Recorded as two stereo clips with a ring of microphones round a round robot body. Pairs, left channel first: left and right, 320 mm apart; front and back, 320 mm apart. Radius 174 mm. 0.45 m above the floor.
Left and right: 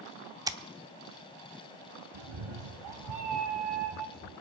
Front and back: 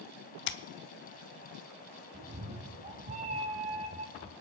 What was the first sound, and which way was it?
Scissors, 20° right.